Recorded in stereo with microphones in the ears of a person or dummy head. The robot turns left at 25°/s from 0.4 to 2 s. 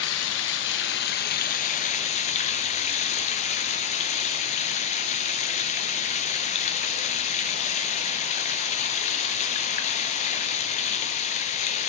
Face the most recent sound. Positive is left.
turn(degrees=40)